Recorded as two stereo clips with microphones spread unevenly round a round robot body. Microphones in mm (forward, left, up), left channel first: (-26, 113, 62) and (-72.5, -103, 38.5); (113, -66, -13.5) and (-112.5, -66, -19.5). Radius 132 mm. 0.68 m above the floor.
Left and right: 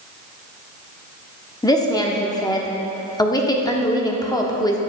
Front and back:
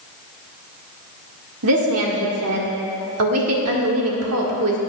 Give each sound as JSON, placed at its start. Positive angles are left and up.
{"t": 1.6, "sound": "a woman speaking", "azimuth_deg": 155, "distance_m": 1.3}